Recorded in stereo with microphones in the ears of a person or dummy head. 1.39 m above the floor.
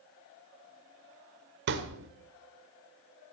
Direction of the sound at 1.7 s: 60° right (ahead or behind).